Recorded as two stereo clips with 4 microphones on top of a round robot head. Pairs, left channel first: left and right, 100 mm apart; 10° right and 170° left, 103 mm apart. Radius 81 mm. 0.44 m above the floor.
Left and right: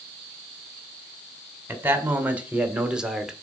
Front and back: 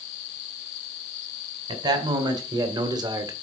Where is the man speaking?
155° right, 2.5 m; by 3.3 s 175° right, 1.7 m.